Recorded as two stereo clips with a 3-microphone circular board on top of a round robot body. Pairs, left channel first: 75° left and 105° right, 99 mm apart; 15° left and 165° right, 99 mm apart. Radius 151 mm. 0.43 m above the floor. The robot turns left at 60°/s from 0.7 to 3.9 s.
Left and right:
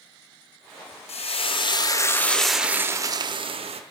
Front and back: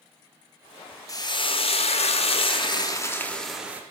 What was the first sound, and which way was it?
Frying, 70° left.